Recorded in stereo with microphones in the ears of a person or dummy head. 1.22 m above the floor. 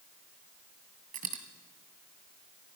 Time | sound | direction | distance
1.1 | a dropped coin | 40° right (ahead or behind) | 2 m